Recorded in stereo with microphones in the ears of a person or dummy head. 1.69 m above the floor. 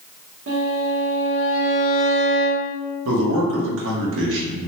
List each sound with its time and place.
0.5 s a violin: 70° right (ahead or behind), 0.9 m
3.0 s a man speaking: 75° right (ahead or behind), 0.9 m